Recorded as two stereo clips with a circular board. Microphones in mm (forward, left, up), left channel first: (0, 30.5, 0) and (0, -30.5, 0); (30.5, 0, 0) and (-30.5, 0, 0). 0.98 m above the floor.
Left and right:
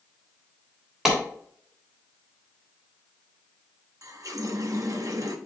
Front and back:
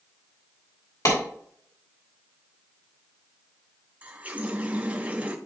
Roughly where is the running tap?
Behind right.